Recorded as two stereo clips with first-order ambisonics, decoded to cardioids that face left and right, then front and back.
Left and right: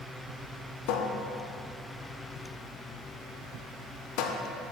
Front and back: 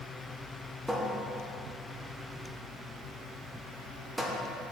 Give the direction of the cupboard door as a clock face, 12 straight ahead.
9 o'clock.